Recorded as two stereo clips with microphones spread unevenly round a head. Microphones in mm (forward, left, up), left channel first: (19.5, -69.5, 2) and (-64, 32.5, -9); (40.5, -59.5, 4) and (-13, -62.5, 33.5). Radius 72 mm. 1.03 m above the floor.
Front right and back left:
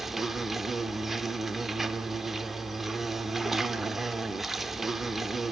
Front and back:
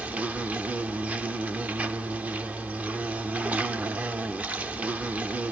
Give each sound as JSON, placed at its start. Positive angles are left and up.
{"t": 0.0, "sound": "an insect", "azimuth_deg": -140, "distance_m": 1.0}